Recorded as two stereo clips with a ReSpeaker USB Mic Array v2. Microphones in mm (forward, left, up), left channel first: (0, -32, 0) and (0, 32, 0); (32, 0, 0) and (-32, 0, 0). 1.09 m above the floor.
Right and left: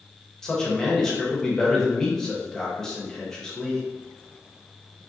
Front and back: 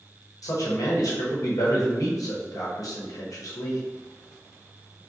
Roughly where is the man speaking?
Ahead.